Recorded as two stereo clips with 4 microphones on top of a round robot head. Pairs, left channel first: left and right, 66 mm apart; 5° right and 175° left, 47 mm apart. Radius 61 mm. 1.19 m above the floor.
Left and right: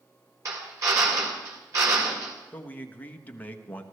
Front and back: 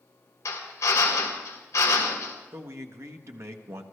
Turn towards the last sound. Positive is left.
turn(degrees=155)